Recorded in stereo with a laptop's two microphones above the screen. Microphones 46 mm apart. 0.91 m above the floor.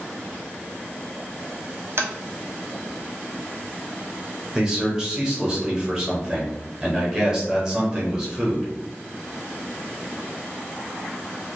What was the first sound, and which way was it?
Tapping, 55° right (ahead or behind).